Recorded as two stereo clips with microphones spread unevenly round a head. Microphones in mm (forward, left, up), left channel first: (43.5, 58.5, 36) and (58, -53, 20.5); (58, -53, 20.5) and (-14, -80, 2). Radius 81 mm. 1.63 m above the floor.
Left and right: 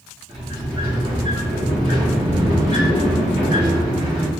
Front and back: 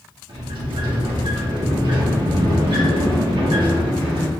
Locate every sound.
0.3 s a sliding door: 145° right, 1.9 m